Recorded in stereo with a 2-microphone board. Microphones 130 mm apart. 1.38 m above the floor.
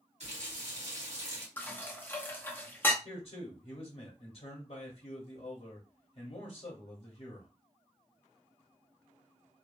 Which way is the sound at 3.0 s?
45° left (ahead or behind).